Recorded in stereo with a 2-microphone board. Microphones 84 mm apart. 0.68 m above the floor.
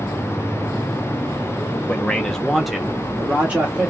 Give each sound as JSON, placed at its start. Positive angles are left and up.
{"t": 1.9, "sound": "a man speaking", "side_deg": 15, "distance_m": 0.9}